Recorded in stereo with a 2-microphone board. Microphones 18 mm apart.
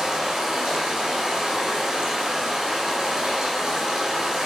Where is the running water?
55° right (ahead or behind), 2.5 m.